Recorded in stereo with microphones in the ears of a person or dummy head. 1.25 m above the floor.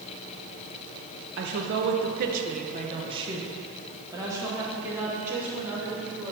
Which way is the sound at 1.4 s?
50° right (ahead or behind).